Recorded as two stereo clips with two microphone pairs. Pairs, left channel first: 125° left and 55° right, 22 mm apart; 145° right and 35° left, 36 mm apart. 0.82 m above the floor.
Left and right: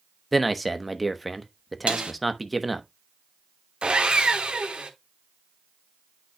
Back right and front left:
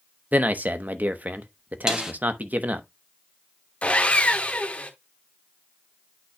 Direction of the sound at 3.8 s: 95° right.